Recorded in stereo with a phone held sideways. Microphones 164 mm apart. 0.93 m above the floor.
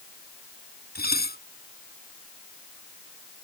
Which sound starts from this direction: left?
Dishes clattering, at 0.9 s.